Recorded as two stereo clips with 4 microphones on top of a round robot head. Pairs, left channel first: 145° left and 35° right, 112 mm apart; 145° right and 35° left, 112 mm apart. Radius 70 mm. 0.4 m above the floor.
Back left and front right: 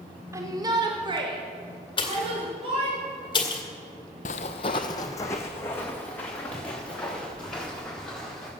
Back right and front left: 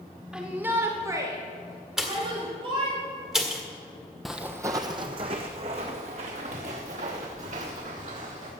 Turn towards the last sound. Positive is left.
turn(degrees=60)